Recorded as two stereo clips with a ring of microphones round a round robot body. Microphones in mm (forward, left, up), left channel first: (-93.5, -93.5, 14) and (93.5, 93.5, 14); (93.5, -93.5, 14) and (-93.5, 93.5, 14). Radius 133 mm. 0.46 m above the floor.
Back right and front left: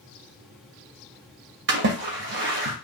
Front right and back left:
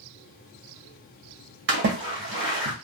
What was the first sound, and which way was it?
A splash, 90° left.